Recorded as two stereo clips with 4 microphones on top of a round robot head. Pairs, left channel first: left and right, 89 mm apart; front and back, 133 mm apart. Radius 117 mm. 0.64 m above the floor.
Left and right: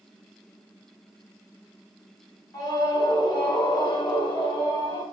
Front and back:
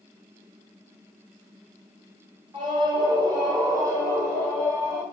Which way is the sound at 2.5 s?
125° left.